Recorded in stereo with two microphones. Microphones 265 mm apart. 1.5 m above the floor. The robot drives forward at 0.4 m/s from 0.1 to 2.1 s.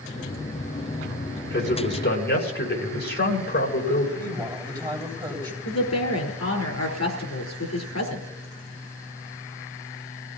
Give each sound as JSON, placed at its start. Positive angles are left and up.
{"t": 1.5, "sound": "a man speaking", "side_deg": 40, "distance_m": 5.5}
{"t": 4.2, "sound": "a woman speaking", "side_deg": -20, "distance_m": 8.5}
{"t": 5.7, "sound": "a woman speaking", "side_deg": 75, "distance_m": 4.5}